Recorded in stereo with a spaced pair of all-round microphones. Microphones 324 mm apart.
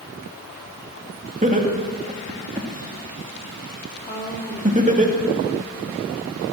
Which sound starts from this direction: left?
A woman speaking, at 4.1 s.